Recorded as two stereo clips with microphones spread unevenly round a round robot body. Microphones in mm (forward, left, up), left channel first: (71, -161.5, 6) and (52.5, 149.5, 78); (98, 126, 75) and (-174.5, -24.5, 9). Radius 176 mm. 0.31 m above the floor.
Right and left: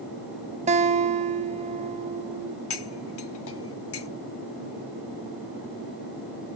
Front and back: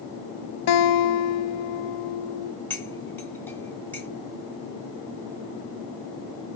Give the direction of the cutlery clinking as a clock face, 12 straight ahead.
2 o'clock.